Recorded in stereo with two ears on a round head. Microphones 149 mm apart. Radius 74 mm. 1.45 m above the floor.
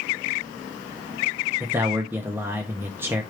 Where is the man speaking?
15° right (ahead or behind), 0.6 m.